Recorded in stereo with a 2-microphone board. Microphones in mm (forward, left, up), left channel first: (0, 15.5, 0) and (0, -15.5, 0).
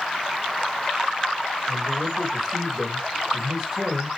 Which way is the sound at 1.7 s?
10° right (ahead or behind).